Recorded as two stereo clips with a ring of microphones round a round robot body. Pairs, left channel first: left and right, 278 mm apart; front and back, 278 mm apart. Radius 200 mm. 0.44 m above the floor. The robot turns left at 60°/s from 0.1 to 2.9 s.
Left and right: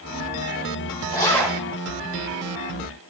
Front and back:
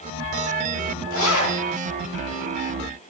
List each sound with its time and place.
1.1 s a zipper: 25° left, 2.5 m; by 1.6 s 5° right, 2.5 m